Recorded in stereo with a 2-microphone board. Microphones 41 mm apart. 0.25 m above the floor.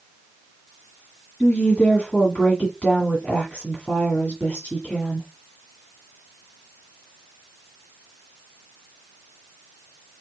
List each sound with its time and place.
1.4 s a woman speaking: 30° left (ahead or behind), 1.7 m